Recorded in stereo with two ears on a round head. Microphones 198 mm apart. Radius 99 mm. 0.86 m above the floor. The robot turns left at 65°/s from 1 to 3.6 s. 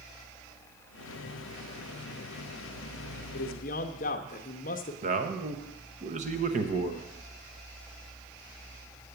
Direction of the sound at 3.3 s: 50° left (ahead or behind).